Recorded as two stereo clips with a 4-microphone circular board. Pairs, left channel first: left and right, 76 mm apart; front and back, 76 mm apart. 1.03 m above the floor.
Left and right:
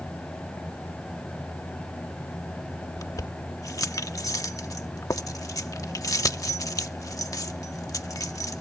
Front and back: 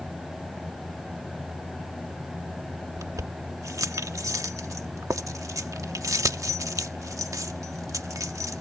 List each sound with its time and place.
3.0 s keys jangling: 135° left